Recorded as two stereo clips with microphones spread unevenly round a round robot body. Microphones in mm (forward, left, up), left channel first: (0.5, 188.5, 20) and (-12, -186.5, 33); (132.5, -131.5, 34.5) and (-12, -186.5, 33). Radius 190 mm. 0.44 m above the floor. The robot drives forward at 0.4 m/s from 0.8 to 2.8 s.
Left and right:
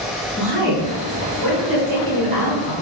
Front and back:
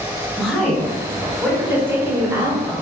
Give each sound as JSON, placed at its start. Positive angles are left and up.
{"t": 0.4, "sound": "a woman speaking", "azimuth_deg": -70, "distance_m": 1.8}